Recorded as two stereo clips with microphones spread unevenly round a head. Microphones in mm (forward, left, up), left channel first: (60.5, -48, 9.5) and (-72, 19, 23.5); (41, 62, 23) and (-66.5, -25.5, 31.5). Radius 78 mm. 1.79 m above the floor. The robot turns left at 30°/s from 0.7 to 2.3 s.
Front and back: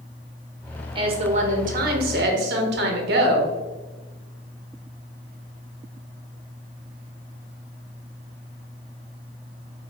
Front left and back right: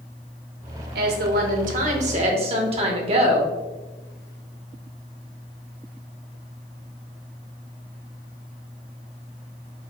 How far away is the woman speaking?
About 0.9 m.